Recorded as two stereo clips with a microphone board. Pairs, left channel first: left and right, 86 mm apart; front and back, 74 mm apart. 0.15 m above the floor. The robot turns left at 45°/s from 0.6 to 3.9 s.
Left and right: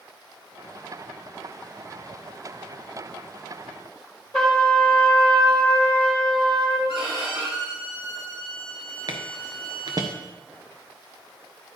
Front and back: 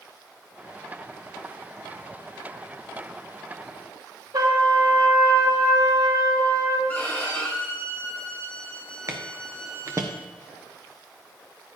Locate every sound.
4.3 s a trumpet: 175° left, 3.5 m
6.9 s a violin: 70° right, 3.5 m
9.1 s footsteps: 130° right, 1.4 m